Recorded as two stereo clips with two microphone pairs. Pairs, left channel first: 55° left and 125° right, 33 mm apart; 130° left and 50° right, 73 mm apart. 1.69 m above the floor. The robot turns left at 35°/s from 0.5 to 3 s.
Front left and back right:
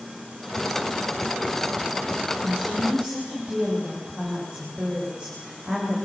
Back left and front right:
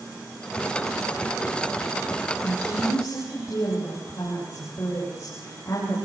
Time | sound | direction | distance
2.4 | a woman speaking | 160° right | 9.5 m